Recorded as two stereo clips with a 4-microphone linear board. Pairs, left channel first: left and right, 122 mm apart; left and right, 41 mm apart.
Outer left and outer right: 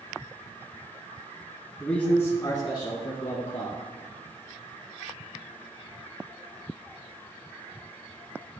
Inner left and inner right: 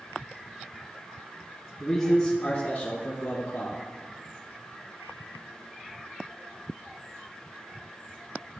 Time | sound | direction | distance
1.8 | a man speaking | 5° left (ahead or behind) | 1.4 m